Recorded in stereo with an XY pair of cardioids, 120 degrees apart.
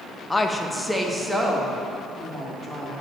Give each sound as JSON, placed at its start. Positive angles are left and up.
{"t": 0.3, "sound": "a woman speaking", "azimuth_deg": 15, "distance_m": 1.2}